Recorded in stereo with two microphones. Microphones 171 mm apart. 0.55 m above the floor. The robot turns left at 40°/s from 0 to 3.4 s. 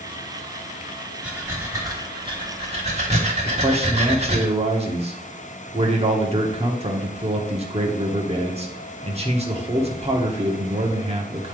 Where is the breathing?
10° right, 1.4 m; by 4.5 s 100° right, 1.4 m.